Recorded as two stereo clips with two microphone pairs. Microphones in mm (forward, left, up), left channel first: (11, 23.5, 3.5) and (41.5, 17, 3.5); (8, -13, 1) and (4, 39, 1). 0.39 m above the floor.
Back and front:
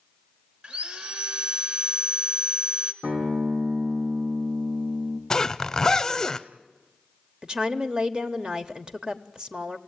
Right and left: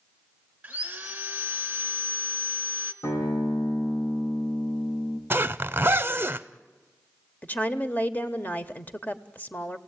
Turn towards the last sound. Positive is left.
turn(degrees=-55)